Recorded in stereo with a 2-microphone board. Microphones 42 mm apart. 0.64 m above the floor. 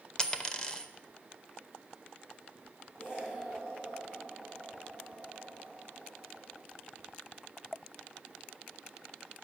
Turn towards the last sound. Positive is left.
turn(degrees=50)  # may be behind; listen again after turning